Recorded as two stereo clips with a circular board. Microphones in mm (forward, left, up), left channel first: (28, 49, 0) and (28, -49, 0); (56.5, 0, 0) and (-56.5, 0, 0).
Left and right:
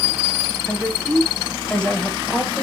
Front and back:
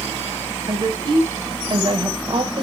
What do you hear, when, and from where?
0.7 s a woman speaking: 165° left, 1.8 m